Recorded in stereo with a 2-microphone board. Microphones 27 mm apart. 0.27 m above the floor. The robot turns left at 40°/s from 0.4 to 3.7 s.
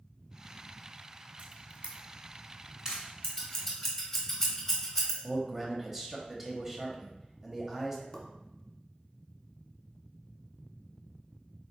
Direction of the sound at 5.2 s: 15° right (ahead or behind).